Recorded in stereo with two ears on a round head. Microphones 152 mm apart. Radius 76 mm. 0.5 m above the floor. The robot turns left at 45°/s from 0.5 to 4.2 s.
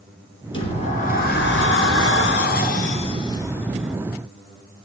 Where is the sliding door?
150° left, 5 m; by 4.0 s 5° right, 5 m.